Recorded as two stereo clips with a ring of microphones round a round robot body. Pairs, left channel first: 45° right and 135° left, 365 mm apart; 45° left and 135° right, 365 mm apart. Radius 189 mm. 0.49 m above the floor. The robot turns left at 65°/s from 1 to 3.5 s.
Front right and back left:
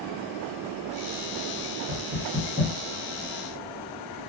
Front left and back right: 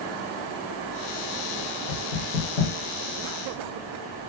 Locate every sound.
1.9 s knocking: 85° left, 1.9 m; by 2.7 s 30° left, 1.9 m